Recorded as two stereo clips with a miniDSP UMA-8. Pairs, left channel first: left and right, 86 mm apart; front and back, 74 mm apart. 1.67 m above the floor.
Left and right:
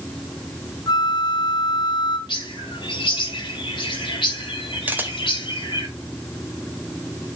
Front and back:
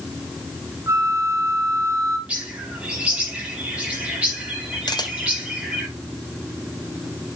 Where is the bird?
110° left, 3 m.